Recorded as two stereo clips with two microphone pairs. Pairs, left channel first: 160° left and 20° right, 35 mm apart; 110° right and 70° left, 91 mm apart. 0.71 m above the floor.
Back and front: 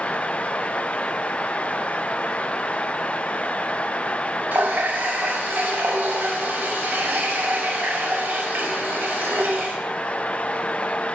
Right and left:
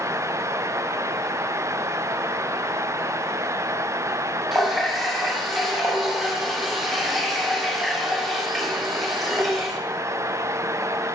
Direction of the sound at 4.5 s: 20° right.